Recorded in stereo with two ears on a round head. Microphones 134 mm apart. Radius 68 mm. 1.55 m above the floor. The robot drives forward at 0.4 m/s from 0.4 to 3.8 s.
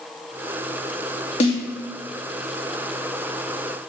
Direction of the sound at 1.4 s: 40° left (ahead or behind).